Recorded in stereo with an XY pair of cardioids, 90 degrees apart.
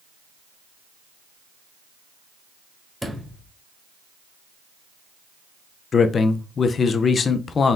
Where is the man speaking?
55° left, 0.5 m.